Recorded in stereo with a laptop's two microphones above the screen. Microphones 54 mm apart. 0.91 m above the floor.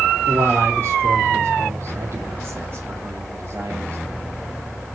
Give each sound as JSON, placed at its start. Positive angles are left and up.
{"t": 0.3, "sound": "a man speaking", "side_deg": -55, "distance_m": 2.5}